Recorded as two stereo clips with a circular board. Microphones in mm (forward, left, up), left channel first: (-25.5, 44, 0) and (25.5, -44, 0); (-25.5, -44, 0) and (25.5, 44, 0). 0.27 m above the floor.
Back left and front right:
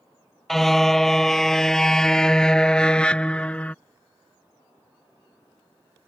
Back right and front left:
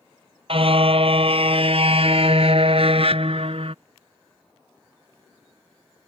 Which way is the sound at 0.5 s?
35° left.